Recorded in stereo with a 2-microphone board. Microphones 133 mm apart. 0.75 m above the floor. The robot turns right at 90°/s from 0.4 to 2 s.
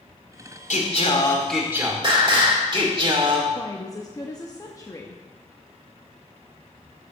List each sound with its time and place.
0.7 s singing: 100° left, 1.8 m; by 3.5 s 140° right, 1.8 m
3.5 s a woman speaking: 25° left (ahead or behind), 0.7 m